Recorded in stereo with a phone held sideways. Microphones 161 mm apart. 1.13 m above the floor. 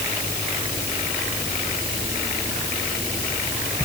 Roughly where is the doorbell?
I don't hear a doorbell.